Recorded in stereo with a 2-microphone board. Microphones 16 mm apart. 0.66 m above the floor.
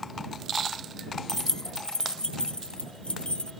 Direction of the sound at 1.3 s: 20° left (ahead or behind).